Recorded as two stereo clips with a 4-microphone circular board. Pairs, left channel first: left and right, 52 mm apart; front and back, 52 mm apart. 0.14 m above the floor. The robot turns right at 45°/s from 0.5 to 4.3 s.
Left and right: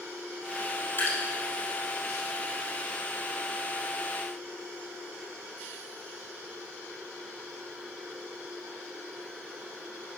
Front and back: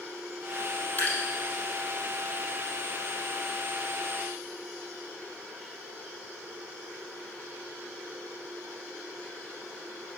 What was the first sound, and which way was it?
Dripping, 60° left.